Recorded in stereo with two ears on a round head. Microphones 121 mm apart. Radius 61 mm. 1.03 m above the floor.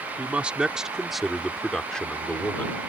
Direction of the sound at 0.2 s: 10° right (ahead or behind).